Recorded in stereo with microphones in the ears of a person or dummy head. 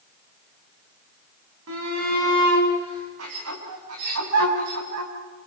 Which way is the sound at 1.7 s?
80° right.